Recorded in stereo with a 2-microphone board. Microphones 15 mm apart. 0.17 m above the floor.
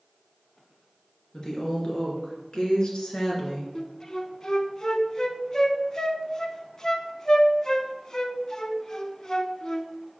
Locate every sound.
1.3 s a woman speaking: 40° left (ahead or behind), 2.5 m; by 3.6 s 55° left (ahead or behind), 2 m
3.8 s a flute: 35° left (ahead or behind), 0.6 m